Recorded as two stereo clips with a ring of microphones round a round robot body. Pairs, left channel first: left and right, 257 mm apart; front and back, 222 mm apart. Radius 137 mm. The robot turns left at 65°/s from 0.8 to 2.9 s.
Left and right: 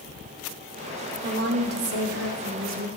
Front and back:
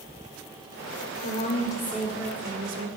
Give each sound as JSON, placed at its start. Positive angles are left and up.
{"t": 1.2, "sound": "a woman speaking", "azimuth_deg": -40, "distance_m": 1.9}